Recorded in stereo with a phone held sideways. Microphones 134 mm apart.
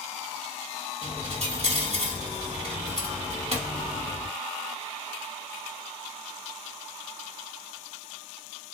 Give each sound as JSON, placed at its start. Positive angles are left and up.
{"t": 1.0, "sound": "a dropped coin", "side_deg": -55, "distance_m": 1.7}